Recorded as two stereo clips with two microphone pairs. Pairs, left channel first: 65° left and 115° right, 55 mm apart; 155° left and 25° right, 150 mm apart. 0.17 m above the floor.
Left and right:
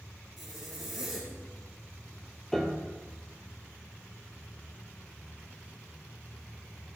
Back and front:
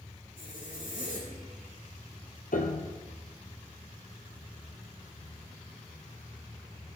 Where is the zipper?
155° left, 6.5 m.